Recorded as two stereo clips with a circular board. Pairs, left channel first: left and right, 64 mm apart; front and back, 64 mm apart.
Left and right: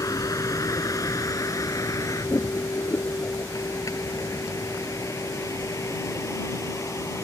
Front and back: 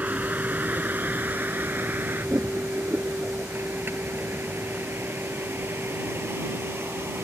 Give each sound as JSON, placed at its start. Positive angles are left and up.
{"t": 0.0, "sound": "a vehicle", "azimuth_deg": 115}